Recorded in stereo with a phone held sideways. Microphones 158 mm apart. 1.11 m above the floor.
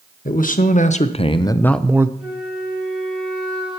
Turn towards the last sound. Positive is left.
turn(degrees=-5)  # may be behind; listen again after turning